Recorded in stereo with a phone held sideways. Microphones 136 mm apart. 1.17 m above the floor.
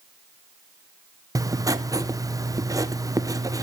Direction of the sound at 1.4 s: 25° right (ahead or behind).